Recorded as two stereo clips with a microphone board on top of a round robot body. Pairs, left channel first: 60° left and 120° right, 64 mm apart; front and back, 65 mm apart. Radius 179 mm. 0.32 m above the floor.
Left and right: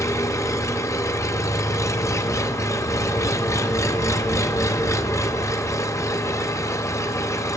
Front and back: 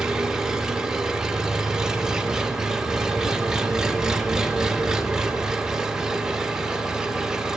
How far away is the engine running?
About 0.7 m.